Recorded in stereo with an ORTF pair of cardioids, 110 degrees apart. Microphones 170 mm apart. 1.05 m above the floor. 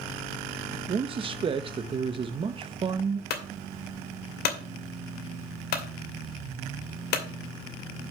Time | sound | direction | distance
0.9 | a man speaking | 30° right | 0.8 m
3.3 | a clunk | 70° left | 2.5 m